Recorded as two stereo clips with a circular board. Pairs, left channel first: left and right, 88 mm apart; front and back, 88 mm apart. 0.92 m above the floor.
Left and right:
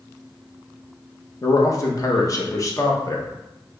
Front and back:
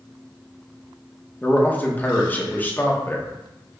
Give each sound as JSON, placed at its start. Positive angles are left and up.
{"t": 1.4, "sound": "a man speaking", "azimuth_deg": 60, "distance_m": 0.8}